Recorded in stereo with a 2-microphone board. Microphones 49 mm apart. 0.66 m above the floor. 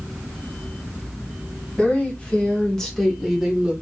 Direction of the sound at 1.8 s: 25° left (ahead or behind).